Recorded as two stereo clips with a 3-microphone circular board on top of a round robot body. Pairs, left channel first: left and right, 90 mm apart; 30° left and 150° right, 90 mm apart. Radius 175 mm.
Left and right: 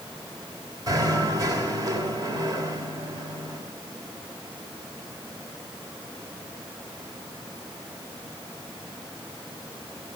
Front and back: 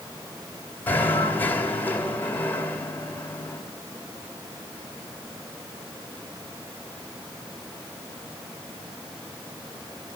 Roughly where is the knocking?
Ahead right.